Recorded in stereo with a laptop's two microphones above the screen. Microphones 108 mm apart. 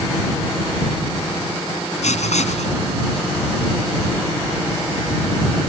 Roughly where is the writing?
Left.